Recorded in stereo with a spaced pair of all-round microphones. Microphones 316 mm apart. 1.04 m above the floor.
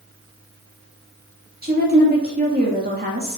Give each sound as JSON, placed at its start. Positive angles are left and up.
{"t": 1.6, "sound": "a woman speaking", "side_deg": -30, "distance_m": 2.5}